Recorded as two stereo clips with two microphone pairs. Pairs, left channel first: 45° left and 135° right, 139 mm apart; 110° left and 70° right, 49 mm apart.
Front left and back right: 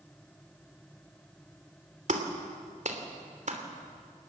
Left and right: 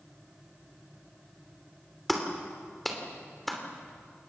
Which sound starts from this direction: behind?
A clap, at 2.1 s.